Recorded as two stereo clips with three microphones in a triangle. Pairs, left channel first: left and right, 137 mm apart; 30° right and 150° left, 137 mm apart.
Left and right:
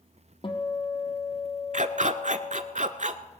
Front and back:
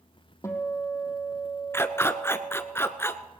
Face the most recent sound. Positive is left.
turn(degrees=-100)